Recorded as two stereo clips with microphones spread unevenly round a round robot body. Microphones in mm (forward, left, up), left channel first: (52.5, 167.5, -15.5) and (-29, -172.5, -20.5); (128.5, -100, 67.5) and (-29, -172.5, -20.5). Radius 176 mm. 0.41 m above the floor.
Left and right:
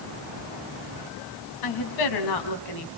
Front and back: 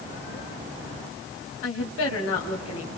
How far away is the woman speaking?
About 4 m.